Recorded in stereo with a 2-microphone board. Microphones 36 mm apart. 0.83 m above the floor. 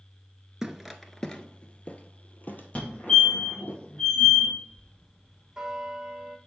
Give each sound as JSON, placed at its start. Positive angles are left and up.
{"t": 0.6, "sound": "footsteps", "side_deg": -15, "distance_m": 0.8}
{"t": 2.8, "sound": "a fire alarm", "side_deg": 35, "distance_m": 2.0}
{"t": 4.7, "sound": "a bell", "side_deg": -10, "distance_m": 1.5}